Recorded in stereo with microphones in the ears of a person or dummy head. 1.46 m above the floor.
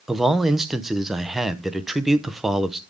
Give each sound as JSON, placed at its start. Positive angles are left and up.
{"t": 0.1, "sound": "a man speaking", "side_deg": -5, "distance_m": 0.7}